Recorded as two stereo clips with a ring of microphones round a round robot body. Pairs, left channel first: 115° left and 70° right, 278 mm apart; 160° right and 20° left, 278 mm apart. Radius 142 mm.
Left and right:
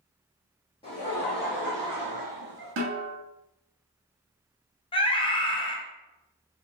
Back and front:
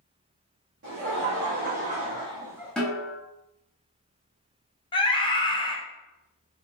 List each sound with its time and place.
0.8 s laughter: 50° left, 1.0 m; by 2.7 s 65° right, 1.0 m
2.8 s a snare drum: 70° right, 0.8 m
4.9 s a scream: 155° left, 0.6 m